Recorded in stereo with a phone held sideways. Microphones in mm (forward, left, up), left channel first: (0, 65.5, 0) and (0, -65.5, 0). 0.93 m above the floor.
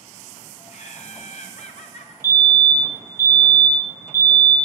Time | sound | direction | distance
0.7 | laughter | 60° left (ahead or behind) | 0.8 m
2.2 | a fire alarm | 20° left (ahead or behind) | 1.6 m